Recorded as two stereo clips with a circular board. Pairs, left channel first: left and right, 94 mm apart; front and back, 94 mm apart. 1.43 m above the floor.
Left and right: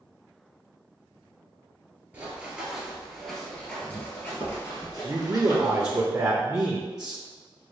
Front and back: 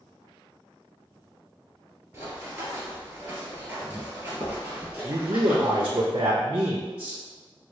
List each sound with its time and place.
2.1 s running footsteps: 140° right, 1.6 m; by 6.0 s 105° left, 2 m
5.0 s a man speaking: 145° right, 0.6 m